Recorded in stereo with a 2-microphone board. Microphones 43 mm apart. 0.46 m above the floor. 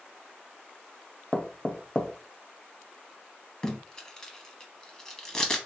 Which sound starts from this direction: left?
Knocking, at 1.3 s.